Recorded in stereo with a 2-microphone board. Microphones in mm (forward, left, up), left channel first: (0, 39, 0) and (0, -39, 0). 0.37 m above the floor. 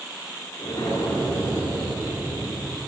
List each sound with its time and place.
0.6 s an explosion: 65° left (ahead or behind), 6.5 m